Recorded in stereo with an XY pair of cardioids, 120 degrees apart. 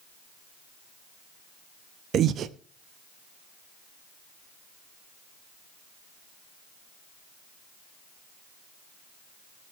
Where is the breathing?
55° right, 0.6 m.